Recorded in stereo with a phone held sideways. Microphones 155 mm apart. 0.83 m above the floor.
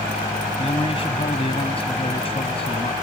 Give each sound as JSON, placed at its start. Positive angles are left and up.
{"t": 0.6, "sound": "a man speaking", "side_deg": 40}